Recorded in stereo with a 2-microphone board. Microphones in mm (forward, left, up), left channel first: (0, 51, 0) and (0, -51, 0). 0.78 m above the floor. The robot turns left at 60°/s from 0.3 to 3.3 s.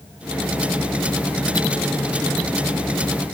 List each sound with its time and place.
Only background noise.